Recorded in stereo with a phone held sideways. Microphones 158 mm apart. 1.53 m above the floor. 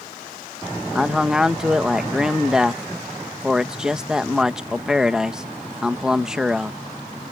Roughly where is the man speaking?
Centre.